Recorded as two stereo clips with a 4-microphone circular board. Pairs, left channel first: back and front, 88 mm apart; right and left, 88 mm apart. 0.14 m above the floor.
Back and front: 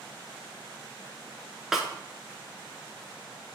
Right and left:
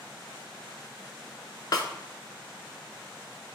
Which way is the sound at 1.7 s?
85° right.